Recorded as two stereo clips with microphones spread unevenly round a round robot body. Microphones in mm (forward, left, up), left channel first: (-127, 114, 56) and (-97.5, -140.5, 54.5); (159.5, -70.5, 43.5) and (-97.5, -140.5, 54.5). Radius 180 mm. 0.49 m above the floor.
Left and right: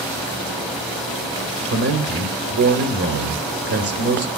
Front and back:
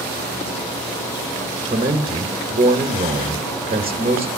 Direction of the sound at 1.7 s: 95° right.